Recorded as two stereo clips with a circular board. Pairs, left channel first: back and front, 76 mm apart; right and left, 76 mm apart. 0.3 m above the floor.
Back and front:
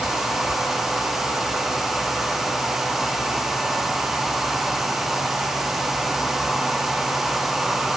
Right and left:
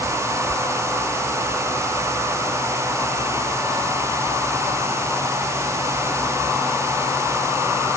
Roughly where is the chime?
No chime in this recording.